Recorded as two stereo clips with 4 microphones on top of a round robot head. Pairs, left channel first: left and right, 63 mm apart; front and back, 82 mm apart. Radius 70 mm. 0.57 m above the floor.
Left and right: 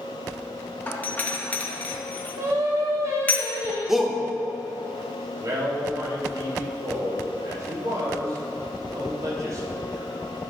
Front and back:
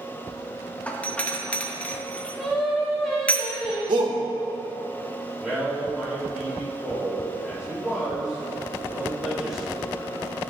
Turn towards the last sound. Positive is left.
turn(degrees=-100)